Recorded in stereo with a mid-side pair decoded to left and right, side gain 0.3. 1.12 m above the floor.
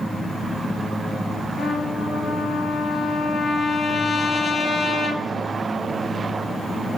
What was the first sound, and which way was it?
A trumpet, 65° left.